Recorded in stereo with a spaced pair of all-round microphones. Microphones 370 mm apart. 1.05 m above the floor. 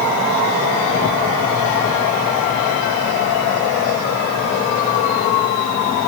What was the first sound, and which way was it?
Only background noise.